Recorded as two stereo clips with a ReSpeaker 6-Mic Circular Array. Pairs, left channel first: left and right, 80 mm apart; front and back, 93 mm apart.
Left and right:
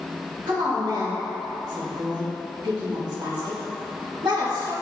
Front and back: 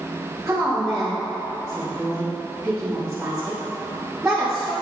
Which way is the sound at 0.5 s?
95° right.